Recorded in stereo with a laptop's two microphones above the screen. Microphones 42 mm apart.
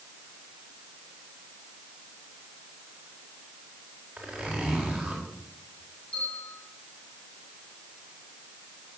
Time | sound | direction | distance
4.2 | a zipper | 15° right (ahead or behind) | 4 m
6.1 | a bell | 20° left (ahead or behind) | 8 m